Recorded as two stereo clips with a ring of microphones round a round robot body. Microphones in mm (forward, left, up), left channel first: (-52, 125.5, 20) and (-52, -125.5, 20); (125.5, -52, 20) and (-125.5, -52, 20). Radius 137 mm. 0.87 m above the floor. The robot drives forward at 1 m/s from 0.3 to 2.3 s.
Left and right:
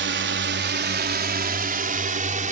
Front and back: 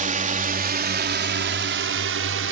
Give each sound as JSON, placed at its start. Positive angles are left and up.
{"t": 0.0, "sound": "a drone", "azimuth_deg": -125}